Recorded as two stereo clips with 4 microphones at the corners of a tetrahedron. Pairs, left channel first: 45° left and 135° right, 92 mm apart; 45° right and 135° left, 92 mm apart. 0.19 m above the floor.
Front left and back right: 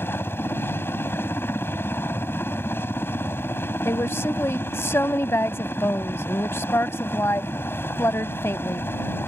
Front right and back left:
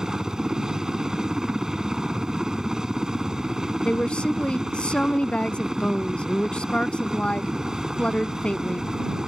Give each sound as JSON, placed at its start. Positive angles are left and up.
{"t": 0.0, "sound": "a helicopter", "azimuth_deg": 60}
{"t": 3.9, "sound": "a woman speaking", "azimuth_deg": 20}